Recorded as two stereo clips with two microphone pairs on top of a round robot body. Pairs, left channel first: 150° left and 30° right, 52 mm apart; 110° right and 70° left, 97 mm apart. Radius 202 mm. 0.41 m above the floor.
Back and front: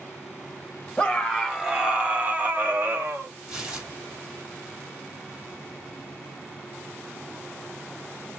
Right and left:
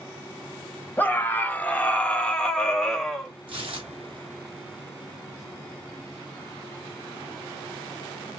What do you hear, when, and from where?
1.0 s a scream: 145° right, 1.2 m; by 3.3 s 30° right, 1.5 m
3.5 s tearing paper: 50° left, 2.5 m